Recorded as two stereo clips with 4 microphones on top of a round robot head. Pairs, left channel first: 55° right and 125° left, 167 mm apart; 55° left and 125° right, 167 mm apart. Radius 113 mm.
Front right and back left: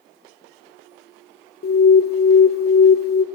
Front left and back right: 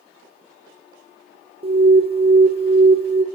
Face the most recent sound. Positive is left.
turn(degrees=-70)